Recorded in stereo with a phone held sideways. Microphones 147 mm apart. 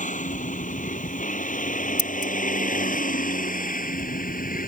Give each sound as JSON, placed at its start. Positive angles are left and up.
{"t": 0.0, "sound": "a vehicle", "side_deg": 60}
{"t": 2.0, "sound": "scissors", "side_deg": 65}